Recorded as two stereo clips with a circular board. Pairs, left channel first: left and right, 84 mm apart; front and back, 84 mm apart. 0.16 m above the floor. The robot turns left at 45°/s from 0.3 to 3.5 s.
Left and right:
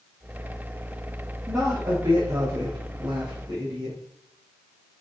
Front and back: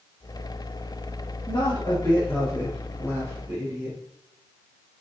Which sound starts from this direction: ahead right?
A woman speaking, at 1.5 s.